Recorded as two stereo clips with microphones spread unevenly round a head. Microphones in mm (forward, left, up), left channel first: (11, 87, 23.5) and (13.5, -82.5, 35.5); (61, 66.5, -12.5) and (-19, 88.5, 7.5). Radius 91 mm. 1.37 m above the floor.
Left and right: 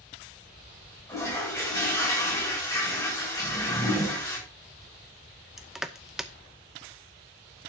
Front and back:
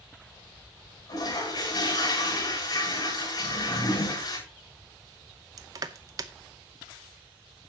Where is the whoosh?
15° left, 7.5 m.